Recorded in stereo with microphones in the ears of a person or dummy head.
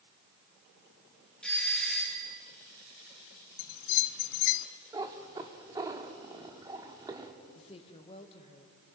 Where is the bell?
65° left (ahead or behind), 0.7 m.